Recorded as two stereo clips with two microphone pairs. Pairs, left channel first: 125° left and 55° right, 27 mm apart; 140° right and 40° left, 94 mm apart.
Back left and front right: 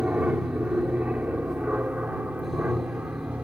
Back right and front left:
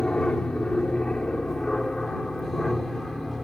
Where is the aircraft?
60° right; by 3.4 s 50° right.